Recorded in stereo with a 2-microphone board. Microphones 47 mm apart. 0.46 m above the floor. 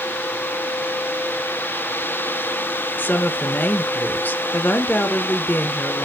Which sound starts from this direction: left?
A woman speaking, at 3.0 s.